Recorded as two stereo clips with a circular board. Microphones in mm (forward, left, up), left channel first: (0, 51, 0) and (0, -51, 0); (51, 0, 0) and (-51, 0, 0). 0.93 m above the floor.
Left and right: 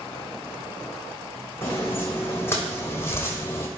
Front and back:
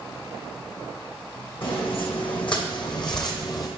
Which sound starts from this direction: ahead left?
Footsteps, at 1.6 s.